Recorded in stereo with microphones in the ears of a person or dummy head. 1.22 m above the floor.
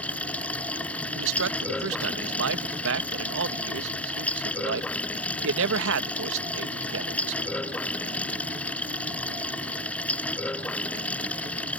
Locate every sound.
0.0 s running water: 10° left (ahead or behind)
1.1 s a man speaking: 75° right (ahead or behind)